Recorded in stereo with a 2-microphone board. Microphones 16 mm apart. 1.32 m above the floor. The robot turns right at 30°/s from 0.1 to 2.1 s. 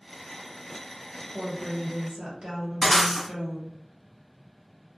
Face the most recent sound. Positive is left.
turn(degrees=5)  # may be behind; listen again after turning